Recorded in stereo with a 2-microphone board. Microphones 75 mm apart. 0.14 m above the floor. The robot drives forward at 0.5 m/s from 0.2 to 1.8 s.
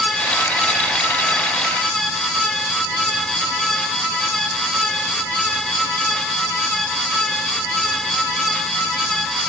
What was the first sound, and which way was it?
Only background noise.